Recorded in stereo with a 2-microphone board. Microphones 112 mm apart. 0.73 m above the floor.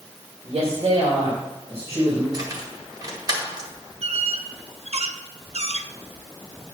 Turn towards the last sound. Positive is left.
turn(degrees=-70)  # may be behind; listen again after turning